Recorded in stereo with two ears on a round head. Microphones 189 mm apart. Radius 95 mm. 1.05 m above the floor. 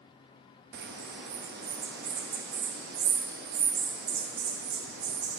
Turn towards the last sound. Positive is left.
turn(degrees=-50)  # may be behind; listen again after turning